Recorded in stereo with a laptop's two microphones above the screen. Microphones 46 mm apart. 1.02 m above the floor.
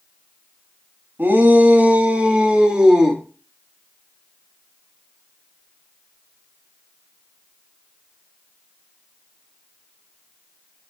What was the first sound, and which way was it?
A shout, 50° right (ahead or behind).